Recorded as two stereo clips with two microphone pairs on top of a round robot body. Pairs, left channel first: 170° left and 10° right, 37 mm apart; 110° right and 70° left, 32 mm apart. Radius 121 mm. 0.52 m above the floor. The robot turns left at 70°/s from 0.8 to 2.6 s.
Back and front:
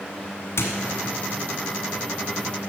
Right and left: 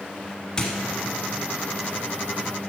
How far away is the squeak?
About 1.4 m.